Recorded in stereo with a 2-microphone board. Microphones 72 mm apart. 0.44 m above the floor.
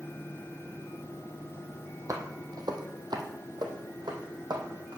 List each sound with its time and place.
2.1 s footsteps: 45° right (ahead or behind), 1.1 m; by 5.0 s 65° right (ahead or behind), 1.8 m